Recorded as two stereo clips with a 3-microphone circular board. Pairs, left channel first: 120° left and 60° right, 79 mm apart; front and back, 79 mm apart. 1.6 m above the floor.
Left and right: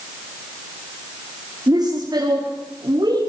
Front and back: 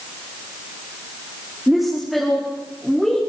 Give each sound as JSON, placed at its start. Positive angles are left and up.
{"t": 1.7, "sound": "a woman speaking", "azimuth_deg": -95, "distance_m": 4.5}